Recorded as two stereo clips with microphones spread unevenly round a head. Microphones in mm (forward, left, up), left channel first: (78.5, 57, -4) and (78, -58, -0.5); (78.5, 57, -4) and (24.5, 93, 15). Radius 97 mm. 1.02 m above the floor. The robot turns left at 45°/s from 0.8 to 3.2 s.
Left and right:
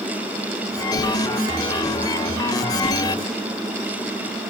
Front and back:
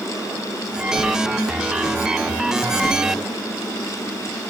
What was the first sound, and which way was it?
A whoosh, 150° left.